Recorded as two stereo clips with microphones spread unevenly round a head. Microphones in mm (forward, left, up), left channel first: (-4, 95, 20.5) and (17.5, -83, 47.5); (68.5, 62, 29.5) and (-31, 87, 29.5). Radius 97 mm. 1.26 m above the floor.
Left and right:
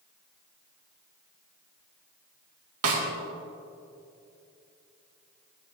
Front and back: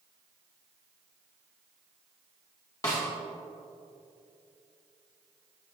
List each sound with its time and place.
2.8 s a snare drum: 85° right, 2 m